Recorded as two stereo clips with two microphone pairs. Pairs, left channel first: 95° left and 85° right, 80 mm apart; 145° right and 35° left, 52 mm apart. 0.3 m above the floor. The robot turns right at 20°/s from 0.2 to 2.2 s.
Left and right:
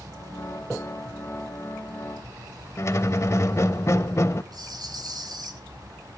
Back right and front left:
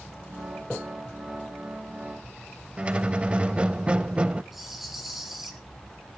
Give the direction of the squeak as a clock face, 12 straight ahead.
9 o'clock.